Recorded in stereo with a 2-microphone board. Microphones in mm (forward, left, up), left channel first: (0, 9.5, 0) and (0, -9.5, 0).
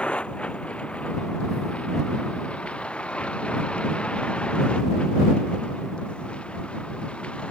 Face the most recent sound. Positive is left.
turn(degrees=80)